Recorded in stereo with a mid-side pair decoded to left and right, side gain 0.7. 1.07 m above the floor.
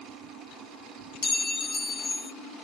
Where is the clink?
15° left, 0.7 m.